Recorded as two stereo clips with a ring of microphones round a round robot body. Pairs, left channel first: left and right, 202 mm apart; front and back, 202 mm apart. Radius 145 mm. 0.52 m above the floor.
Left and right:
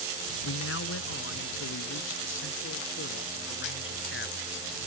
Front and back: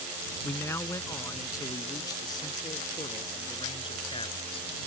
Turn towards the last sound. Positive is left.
turn(degrees=65)